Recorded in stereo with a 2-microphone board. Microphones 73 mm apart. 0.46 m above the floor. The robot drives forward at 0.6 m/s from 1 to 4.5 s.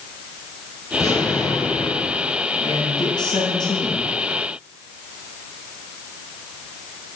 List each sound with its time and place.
0.9 s an explosion: 45° left (ahead or behind), 6.5 m; by 2.4 s 50° left (ahead or behind), 5.5 m
2.6 s a man speaking: 70° left (ahead or behind), 6.5 m; by 4.1 s 75° left (ahead or behind), 6.5 m